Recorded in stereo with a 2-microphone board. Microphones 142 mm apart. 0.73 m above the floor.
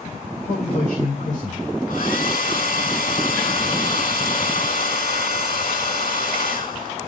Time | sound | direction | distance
0.5 | a man speaking | 60° left (ahead or behind) | 3 m
1.9 | a hair dryer | 75° left (ahead or behind) | 4 m